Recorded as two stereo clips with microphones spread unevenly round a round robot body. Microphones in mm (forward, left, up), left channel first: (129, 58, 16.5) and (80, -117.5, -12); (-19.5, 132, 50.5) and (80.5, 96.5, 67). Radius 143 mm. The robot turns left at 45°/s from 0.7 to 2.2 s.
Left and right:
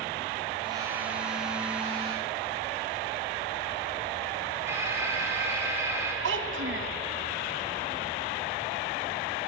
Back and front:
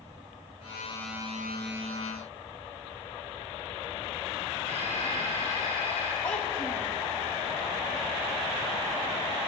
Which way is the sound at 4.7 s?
30° right.